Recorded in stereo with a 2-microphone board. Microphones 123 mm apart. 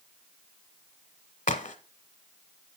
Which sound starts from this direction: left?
A crack, at 1.5 s.